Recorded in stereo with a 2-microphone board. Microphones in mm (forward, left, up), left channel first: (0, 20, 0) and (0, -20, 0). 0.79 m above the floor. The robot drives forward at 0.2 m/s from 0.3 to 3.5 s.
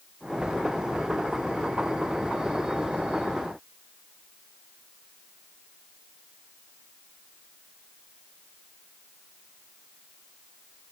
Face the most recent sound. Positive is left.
No sound to turn to.